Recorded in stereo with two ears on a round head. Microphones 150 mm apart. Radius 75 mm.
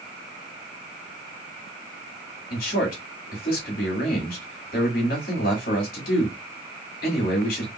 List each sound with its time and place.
2.5 s a man speaking: 55° left (ahead or behind), 2.5 m